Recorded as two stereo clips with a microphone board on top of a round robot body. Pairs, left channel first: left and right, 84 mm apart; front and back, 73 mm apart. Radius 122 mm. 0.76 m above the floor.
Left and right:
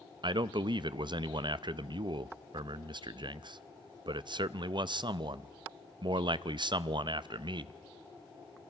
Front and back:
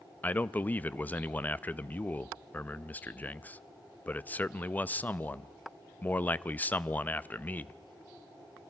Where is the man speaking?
65° right, 0.6 m.